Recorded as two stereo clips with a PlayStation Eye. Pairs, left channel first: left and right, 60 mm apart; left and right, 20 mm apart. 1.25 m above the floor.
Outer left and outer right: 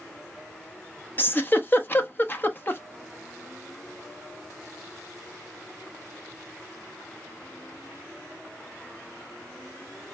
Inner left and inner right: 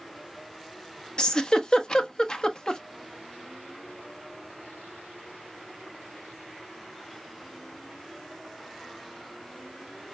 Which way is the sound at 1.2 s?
35° left (ahead or behind).